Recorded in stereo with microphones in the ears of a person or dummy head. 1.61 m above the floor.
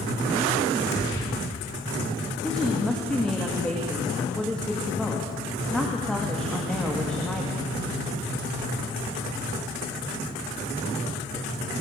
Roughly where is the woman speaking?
Centre.